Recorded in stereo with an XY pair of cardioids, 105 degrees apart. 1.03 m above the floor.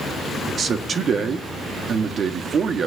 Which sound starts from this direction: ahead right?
A man speaking, at 0.5 s.